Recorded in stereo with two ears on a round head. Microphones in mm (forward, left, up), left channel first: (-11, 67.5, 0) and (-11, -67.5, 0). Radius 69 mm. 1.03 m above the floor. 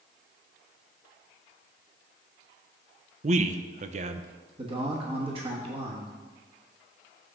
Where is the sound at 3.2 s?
50° right (ahead or behind), 0.5 m.